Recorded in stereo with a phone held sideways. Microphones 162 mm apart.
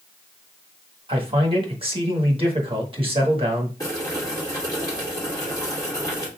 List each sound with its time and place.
1.1 s a man speaking: 35° right (ahead or behind), 1.4 m
3.8 s boiling: 20° left (ahead or behind), 1.7 m